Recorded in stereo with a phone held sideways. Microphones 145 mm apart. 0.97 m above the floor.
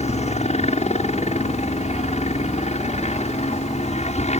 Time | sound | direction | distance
0.0 | a helicopter | 50° left (ahead or behind) | ?